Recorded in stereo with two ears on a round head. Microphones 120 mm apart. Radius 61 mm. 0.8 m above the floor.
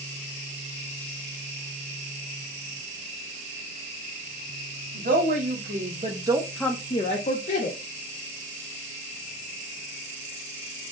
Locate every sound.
4.9 s a woman speaking: 65° right (ahead or behind), 1.7 m; by 7.8 s 65° left (ahead or behind), 1.3 m